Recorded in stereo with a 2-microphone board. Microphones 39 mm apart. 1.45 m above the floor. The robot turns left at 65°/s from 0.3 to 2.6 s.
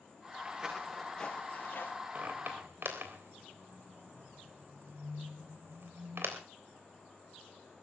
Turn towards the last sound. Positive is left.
turn(degrees=-70)  # may be behind; listen again after turning